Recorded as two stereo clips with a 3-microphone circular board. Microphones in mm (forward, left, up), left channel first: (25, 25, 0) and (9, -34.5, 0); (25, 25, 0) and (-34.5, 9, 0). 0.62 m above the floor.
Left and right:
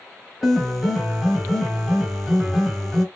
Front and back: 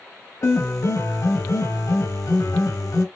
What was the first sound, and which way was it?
A piano, 15° right.